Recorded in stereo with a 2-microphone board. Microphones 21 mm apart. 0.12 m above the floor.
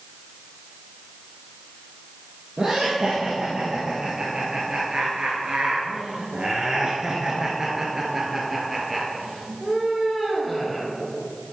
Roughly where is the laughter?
Right.